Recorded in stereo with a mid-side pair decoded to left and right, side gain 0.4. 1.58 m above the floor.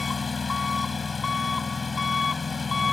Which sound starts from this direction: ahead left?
An engine running, at 0.0 s.